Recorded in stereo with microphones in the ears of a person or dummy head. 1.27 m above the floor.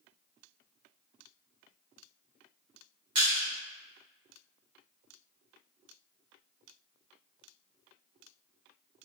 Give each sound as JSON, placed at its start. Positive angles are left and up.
{"t": 3.1, "sound": "crushing", "side_deg": -45, "distance_m": 2.0}